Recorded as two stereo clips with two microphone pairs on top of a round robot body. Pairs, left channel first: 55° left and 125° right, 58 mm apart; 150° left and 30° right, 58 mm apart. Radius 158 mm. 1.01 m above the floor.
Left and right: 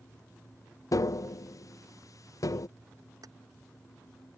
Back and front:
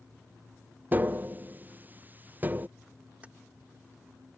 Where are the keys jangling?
100° right.